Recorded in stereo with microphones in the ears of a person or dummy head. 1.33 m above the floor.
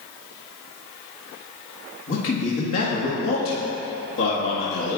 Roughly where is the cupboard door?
I don't hear a cupboard door.